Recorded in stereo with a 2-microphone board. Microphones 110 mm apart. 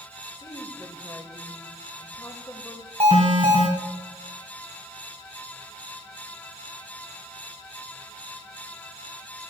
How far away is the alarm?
About 4 m.